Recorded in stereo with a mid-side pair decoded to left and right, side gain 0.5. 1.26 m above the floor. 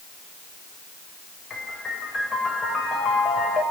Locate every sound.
1.5 s a piano: 35° left, 5.5 m